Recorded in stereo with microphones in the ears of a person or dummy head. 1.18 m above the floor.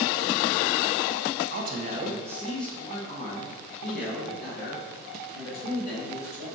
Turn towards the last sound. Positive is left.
turn(degrees=50)  # may be behind; listen again after turning